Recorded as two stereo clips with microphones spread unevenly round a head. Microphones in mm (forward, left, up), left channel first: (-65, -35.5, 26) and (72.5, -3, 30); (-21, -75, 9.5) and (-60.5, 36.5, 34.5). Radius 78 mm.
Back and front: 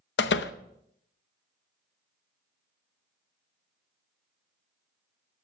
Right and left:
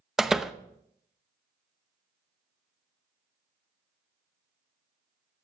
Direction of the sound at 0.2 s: 165° right.